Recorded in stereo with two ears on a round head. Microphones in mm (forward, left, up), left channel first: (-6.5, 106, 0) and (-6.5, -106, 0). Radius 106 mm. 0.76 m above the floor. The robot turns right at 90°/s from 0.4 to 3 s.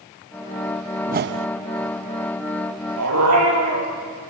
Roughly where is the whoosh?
Behind right.